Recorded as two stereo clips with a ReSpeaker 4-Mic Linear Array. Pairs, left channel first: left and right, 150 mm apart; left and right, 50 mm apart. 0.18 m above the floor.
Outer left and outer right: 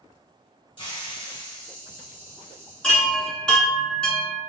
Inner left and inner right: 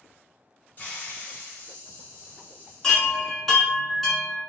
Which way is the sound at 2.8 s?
5° left (ahead or behind).